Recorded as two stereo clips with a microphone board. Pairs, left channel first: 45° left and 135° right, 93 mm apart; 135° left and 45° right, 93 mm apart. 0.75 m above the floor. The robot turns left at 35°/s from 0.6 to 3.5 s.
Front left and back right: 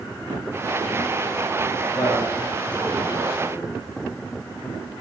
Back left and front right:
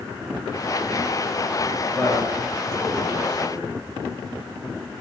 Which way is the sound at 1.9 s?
45° left.